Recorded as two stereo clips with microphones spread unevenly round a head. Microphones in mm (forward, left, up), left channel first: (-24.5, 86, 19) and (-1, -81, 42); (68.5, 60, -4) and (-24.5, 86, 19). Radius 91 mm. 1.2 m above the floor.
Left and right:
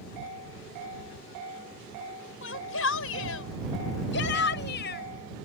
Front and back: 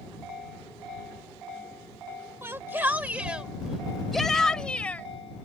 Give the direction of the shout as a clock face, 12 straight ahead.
9 o'clock.